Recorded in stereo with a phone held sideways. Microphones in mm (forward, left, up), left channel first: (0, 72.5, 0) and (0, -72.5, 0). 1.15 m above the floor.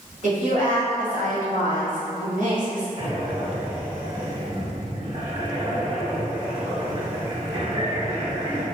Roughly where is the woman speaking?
Right.